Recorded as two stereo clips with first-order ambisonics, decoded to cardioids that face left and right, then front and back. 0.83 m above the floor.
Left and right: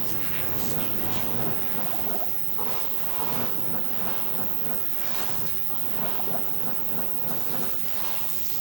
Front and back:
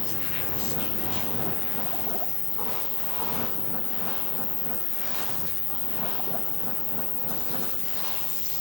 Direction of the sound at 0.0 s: 70° right.